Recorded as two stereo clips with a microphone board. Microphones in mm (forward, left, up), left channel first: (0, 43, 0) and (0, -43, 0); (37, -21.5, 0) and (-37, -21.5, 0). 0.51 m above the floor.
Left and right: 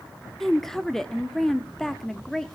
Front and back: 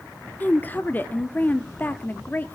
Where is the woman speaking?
10° left, 0.7 m.